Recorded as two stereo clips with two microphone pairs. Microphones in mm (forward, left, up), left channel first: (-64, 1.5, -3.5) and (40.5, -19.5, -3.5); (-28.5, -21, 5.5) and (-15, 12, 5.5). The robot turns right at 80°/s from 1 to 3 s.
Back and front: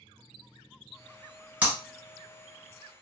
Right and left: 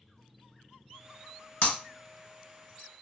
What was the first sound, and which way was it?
Breaking glass, 85° right.